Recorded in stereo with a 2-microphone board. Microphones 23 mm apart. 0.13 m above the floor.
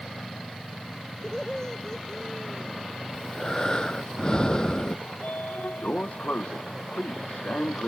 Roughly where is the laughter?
Left.